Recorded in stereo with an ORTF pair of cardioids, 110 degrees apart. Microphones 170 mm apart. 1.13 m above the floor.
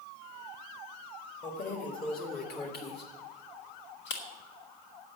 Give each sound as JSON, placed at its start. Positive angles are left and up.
{"t": 1.4, "sound": "keys jangling", "azimuth_deg": 40, "distance_m": 1.9}